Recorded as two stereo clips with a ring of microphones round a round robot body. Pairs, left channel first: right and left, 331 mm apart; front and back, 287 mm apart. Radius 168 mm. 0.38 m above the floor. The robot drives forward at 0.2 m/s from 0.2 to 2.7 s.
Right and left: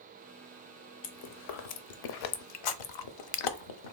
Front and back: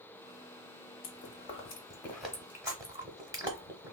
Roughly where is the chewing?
Ahead right.